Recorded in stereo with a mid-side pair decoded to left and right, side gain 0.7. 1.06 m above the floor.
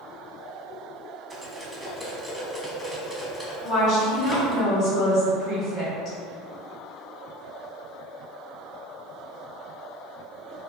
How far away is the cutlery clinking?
About 0.8 m.